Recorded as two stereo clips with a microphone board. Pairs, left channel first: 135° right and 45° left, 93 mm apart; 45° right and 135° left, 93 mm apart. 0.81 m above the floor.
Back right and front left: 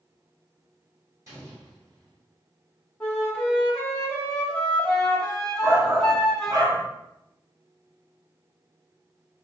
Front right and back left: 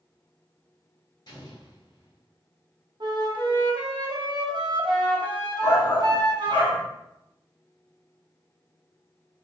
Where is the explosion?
10° right, 1.4 m.